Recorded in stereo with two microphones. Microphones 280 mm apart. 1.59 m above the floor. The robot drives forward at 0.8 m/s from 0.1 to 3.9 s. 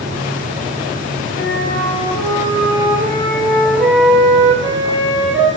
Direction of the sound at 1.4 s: 40° left (ahead or behind).